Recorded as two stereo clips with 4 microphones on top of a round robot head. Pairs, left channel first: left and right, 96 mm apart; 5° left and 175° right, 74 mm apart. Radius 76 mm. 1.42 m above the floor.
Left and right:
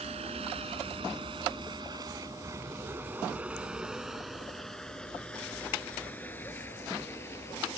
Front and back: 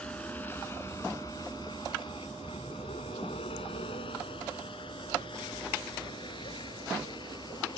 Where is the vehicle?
75° right; by 7.8 s 25° left.